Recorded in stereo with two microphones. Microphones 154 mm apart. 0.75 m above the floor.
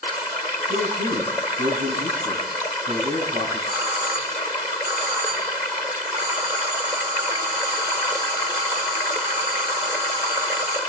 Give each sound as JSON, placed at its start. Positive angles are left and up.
{"t": 0.7, "sound": "a man speaking", "side_deg": -80, "distance_m": 7.0}
{"t": 3.7, "sound": "a doorbell", "side_deg": -25, "distance_m": 4.5}